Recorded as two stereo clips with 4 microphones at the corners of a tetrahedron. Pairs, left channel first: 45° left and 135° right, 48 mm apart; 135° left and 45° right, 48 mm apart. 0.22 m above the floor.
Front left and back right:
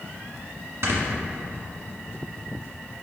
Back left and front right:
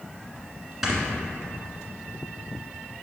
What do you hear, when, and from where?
0.8 s snoring: 130° right, 1.5 m